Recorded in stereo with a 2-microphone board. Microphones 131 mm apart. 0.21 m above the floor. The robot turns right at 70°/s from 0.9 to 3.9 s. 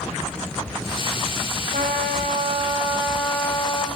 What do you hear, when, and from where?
1.7 s a trumpet: 110° right, 7.5 m; by 3.9 s 40° left, 7.5 m